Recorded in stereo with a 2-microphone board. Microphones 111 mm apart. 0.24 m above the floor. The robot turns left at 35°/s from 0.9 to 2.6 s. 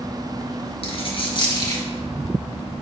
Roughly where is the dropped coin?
Left.